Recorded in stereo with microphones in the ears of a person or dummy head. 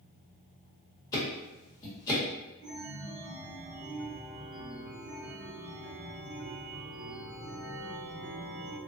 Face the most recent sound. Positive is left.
turn(degrees=-60)  # may be behind; listen again after turning